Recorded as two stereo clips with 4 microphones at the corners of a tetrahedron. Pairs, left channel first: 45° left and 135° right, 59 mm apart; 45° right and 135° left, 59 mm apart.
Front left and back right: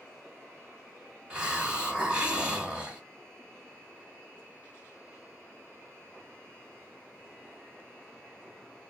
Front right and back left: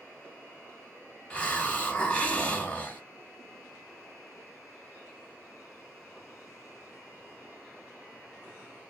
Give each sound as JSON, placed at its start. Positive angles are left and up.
{"t": 1.3, "sound": "a hiss", "azimuth_deg": -85, "distance_m": 1.4}